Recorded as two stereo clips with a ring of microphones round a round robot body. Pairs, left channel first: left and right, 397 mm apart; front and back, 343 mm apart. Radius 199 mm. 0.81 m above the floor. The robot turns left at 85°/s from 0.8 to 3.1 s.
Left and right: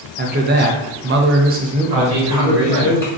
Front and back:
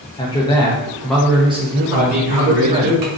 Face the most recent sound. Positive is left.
turn(degrees=165)